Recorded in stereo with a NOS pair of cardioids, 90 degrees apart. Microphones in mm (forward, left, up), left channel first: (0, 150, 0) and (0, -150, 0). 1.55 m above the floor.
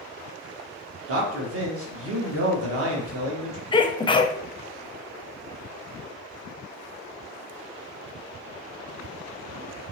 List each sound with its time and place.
1.1 s a man speaking: 50° right, 1.4 m
3.7 s a sneeze: 15° left, 0.5 m